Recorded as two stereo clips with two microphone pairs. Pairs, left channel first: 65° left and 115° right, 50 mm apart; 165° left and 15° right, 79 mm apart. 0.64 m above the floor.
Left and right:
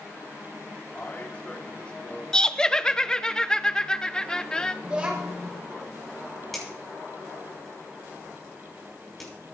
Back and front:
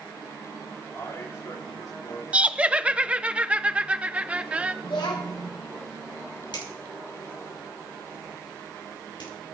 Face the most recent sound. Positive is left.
turn(degrees=150)